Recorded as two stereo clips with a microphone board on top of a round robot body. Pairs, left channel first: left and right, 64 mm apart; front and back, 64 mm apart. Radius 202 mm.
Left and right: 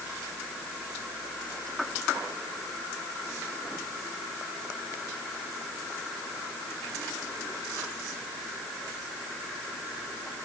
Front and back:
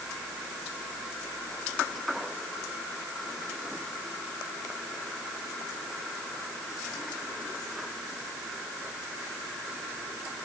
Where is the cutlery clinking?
No cutlery clinking in this recording.